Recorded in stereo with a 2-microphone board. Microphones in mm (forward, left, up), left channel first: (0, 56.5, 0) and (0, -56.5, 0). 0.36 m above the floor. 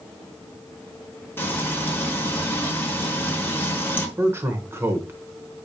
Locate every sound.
1.4 s frying: 15° left (ahead or behind), 1.1 m
4.2 s a man speaking: 20° right (ahead or behind), 0.9 m